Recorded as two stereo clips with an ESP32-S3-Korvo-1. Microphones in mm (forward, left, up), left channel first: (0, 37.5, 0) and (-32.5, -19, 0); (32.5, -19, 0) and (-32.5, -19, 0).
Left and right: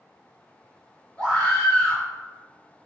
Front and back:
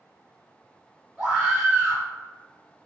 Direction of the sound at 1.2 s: 110° left.